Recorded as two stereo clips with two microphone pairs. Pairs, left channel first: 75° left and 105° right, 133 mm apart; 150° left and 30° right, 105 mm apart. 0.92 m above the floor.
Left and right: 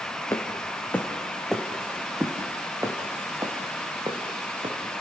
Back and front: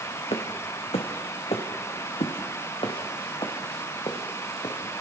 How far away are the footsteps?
About 3 m.